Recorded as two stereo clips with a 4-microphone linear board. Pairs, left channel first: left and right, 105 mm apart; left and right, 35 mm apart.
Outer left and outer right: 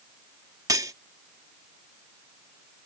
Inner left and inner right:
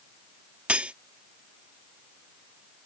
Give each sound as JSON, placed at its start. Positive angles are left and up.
{"t": 0.7, "sound": "cutlery clinking", "side_deg": -35}